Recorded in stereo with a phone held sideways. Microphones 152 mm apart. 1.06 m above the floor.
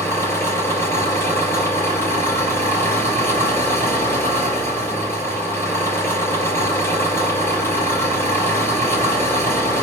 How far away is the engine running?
About 4.5 m.